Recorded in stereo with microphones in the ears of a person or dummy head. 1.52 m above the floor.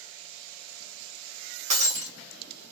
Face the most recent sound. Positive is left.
turn(degrees=-40)  # may be behind; listen again after turning